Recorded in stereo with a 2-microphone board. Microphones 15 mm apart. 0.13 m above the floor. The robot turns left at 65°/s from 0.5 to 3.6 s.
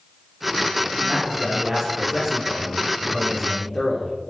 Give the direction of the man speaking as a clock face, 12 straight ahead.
1 o'clock.